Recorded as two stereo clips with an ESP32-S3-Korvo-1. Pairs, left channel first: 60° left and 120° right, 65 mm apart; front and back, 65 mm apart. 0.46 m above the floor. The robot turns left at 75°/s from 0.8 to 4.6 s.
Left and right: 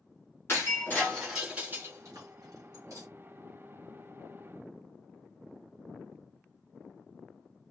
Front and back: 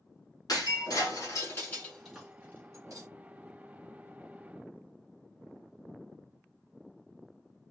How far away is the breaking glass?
About 3.5 m.